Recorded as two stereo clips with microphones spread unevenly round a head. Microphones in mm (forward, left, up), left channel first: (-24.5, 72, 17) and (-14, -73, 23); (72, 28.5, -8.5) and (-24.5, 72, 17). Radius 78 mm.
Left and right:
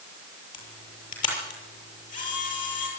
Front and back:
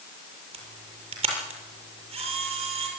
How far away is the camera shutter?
About 7 m.